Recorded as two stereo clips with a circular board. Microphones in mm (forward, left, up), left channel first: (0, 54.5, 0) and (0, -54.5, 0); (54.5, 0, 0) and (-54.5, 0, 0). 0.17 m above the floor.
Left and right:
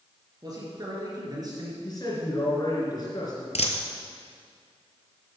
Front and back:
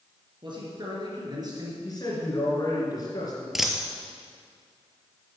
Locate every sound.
0.4 s a man speaking: 140° right, 3.5 m; by 1.7 s 135° right, 3 m
1.8 s a man speaking: 45° left, 3 m
3.5 s a dropped coin: 95° left, 1.0 m